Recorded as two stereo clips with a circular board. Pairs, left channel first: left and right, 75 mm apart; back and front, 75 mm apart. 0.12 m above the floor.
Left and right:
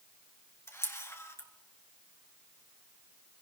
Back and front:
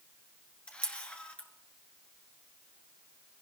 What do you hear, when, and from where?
0.7 s a camera shutter: 115° left, 1.8 m